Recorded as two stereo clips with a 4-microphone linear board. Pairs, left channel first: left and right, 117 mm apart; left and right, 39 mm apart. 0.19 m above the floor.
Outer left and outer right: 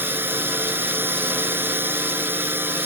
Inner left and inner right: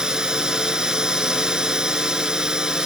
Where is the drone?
15° right (ahead or behind).